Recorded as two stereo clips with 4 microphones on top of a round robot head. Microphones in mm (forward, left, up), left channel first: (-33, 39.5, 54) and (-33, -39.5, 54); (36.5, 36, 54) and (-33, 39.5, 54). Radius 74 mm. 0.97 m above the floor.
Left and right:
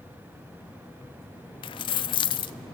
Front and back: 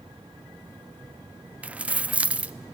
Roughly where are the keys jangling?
Left.